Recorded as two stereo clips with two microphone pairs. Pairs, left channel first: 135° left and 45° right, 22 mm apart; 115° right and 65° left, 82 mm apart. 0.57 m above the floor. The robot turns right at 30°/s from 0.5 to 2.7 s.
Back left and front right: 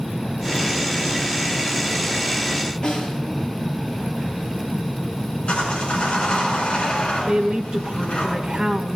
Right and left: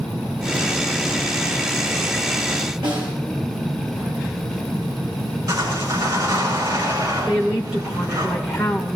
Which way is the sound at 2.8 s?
75° left.